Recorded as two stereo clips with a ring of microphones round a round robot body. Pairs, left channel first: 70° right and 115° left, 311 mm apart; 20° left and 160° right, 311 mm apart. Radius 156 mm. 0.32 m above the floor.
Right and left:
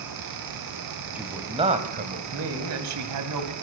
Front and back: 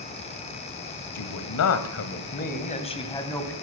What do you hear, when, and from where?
1.1 s a man speaking: 30° left, 2.5 m; by 3.5 s 105° left, 3 m